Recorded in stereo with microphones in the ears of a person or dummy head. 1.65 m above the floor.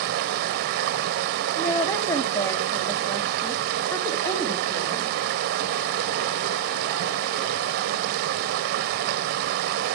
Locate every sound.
0.0 s running water: 60° right (ahead or behind), 0.7 m
1.6 s a woman speaking: 10° left (ahead or behind), 1.1 m